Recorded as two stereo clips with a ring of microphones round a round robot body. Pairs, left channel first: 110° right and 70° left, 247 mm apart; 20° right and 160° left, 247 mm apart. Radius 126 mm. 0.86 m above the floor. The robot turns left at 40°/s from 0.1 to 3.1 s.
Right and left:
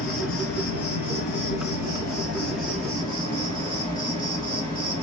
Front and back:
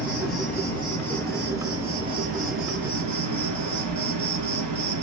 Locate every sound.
0.0 s an insect: 65° right, 2 m; by 5.0 s 175° left, 2 m